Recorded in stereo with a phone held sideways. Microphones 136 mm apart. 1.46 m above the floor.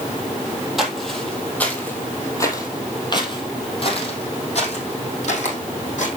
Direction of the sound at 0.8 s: Centre (ahead or behind).